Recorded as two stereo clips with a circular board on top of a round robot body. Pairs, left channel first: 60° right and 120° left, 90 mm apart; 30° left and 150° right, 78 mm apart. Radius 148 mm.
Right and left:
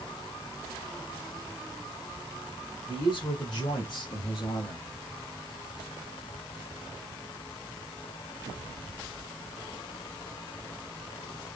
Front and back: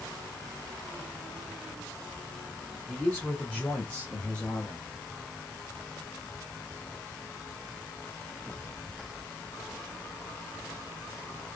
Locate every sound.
2.9 s a man speaking: 40° right, 3 m; by 4.9 s 45° right, 2 m